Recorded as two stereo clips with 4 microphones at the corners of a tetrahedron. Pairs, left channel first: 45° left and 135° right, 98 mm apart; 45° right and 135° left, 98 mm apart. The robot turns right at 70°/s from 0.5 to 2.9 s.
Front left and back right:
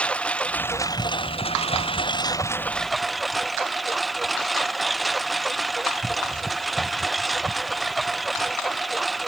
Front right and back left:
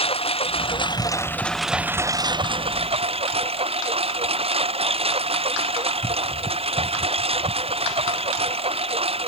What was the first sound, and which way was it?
A lawn mower, 35° right.